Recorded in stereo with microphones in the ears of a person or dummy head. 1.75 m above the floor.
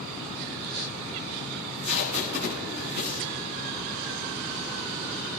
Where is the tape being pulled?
50° right (ahead or behind), 7.5 m.